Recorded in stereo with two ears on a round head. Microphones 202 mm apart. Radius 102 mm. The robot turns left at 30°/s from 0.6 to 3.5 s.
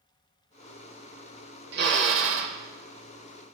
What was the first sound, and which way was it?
A drill, 45° right (ahead or behind).